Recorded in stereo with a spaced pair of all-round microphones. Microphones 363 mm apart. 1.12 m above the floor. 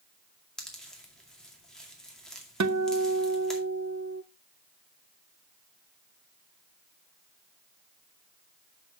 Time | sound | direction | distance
0.6 | a pop | centre (ahead or behind) | 2 m
2.6 | a guitar | 50° right (ahead or behind) | 0.6 m